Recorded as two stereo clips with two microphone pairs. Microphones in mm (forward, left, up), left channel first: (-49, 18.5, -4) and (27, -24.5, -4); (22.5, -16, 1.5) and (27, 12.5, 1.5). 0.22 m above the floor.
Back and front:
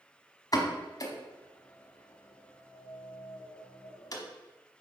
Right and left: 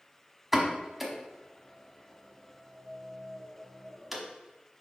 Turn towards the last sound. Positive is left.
turn(degrees=165)